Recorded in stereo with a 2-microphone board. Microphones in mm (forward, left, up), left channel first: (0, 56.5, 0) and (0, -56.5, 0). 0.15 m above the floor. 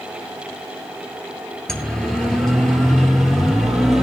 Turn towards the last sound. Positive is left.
turn(degrees=0)  # may be behind; listen again after turning